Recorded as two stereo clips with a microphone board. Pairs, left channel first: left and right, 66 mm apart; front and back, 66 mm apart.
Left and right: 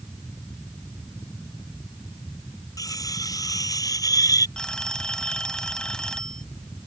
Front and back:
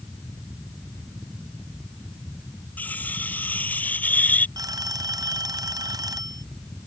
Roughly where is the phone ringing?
Behind.